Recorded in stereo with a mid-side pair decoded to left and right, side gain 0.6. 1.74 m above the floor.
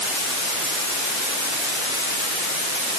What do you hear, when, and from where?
Only background noise.